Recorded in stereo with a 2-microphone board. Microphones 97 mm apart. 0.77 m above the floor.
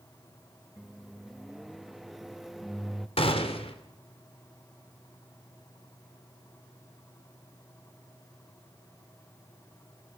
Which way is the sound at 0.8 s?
Centre (ahead or behind).